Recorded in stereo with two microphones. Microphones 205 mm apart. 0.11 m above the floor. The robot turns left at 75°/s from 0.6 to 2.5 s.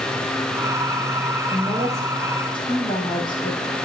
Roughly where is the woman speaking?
Behind right.